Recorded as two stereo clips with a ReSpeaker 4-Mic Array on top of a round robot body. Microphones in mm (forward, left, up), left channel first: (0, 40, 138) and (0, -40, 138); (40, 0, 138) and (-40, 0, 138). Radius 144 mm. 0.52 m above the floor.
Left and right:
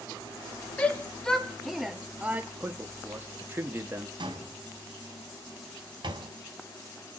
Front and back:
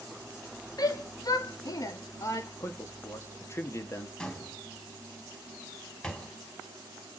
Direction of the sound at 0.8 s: 20° left.